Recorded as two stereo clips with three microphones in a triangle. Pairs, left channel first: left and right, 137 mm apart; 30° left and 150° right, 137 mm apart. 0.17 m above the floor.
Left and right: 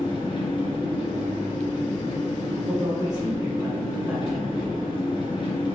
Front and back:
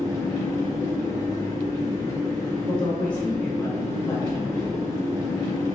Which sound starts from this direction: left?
An engine running, at 0.0 s.